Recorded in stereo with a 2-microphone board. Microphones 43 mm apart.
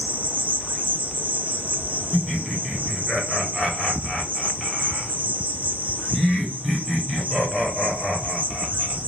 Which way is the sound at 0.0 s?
40° right (ahead or behind).